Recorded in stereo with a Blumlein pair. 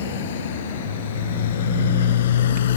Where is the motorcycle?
60° left.